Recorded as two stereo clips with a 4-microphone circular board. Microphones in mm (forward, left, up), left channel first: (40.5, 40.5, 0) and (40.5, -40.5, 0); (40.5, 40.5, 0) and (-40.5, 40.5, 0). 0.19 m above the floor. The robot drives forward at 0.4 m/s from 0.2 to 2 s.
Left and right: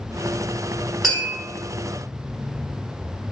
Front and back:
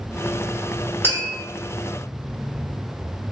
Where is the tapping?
Straight behind, 1.7 m.